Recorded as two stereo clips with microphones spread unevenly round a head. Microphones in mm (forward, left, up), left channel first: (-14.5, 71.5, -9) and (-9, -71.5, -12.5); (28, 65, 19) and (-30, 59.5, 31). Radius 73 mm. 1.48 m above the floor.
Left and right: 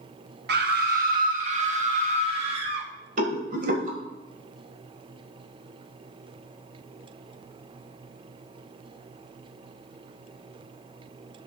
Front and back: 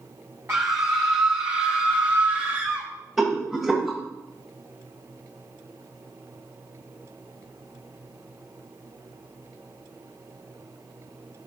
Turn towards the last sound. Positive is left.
turn(degrees=-100)